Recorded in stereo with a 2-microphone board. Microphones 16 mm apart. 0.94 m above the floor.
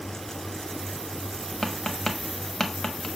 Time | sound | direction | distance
1.6 | tapping | 45° left (ahead or behind) | 1.0 m